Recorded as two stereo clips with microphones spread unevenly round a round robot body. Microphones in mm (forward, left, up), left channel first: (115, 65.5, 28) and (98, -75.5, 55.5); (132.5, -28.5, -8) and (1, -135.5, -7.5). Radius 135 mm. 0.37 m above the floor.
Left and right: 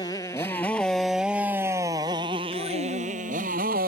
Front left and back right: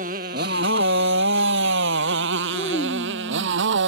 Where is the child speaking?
100° left.